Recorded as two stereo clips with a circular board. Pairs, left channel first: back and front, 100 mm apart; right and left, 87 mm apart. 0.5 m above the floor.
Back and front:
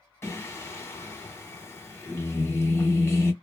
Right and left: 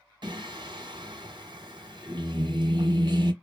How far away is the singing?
About 0.9 m.